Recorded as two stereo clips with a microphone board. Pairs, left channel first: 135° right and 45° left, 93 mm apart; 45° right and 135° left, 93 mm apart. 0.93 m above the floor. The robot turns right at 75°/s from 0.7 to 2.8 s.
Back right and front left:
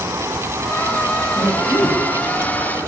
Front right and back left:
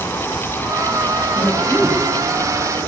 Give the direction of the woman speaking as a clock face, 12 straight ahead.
1 o'clock.